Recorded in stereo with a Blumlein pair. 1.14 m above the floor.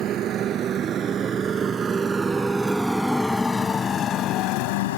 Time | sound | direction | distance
0.0 | a motorcycle | 30° right | ?